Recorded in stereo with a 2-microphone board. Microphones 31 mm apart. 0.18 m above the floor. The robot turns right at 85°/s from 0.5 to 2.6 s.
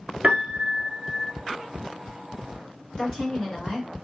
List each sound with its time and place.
0.2 s a piano: 65° right, 0.8 m; by 1.3 s 5° left, 0.8 m
3.0 s a woman speaking: 40° left (ahead or behind), 2.5 m